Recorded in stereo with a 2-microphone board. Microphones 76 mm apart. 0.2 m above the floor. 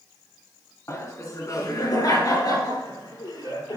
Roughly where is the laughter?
Left.